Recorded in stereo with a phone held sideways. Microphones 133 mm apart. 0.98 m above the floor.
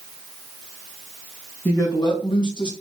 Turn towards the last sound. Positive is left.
turn(degrees=35)  # may be behind; listen again after turning